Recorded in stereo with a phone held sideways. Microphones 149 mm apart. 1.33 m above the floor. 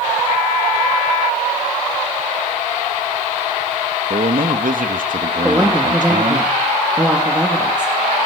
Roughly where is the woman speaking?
Centre.